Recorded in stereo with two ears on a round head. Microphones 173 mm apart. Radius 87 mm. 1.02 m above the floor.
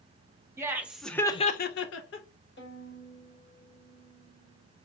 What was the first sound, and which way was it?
Laughter, 15° right (ahead or behind).